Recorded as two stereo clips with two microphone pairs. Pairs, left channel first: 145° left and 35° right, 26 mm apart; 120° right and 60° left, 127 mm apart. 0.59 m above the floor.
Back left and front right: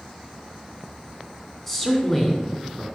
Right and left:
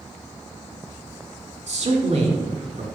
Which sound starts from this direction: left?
A man speaking, at 1.7 s.